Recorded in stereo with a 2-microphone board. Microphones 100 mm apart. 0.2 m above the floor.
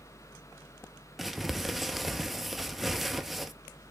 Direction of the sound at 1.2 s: Centre (ahead or behind).